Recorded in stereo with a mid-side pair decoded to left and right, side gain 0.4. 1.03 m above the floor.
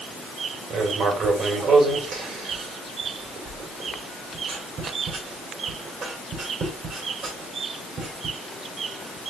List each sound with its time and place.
0.7 s writing: 70° right, 3 m